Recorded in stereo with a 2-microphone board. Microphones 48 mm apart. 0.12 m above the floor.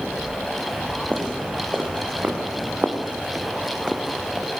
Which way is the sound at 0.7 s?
40° right (ahead or behind).